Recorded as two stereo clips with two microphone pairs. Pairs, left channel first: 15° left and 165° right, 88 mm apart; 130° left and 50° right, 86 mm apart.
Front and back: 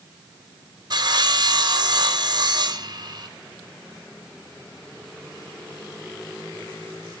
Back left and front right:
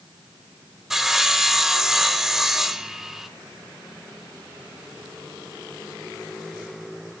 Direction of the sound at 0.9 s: 135° right.